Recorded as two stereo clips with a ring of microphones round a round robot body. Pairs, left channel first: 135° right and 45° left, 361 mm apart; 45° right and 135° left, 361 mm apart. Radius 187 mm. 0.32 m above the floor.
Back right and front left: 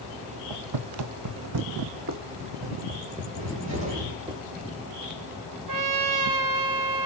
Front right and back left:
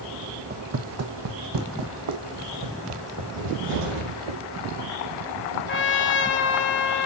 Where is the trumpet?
15° left, 1.0 m.